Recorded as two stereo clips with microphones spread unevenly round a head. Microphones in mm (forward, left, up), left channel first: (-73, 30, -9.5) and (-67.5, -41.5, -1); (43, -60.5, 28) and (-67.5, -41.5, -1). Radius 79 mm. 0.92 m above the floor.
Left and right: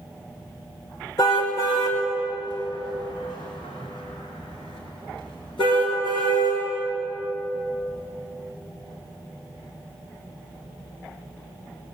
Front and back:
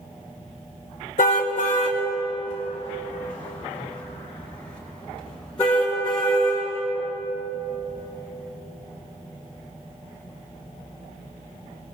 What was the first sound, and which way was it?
A car horn, 30° left.